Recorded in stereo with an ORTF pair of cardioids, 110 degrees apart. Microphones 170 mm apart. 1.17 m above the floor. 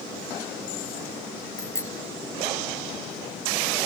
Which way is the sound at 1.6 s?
15° left.